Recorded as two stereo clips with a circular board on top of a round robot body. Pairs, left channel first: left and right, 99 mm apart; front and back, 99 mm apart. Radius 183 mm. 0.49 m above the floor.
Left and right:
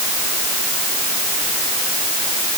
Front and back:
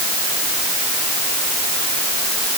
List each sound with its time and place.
Only background noise.